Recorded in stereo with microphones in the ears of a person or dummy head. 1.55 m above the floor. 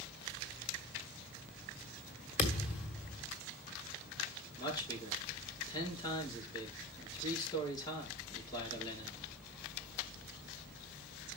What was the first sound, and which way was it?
A thud, 40° left (ahead or behind).